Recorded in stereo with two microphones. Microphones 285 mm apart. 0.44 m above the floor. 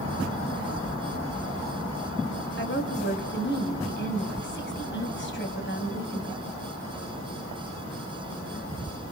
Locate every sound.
2.6 s a woman speaking: 40° left (ahead or behind), 2.5 m